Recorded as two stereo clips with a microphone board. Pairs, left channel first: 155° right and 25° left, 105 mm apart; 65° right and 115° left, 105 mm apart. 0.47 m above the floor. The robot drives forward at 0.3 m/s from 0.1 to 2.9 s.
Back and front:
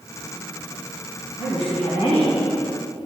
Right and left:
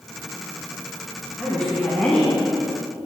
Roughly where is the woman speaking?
Behind right.